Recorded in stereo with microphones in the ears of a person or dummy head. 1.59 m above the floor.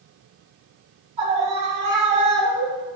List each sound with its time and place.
1.2 s a scream: 40° right (ahead or behind), 4 m; by 3.0 s 35° right (ahead or behind), 2.5 m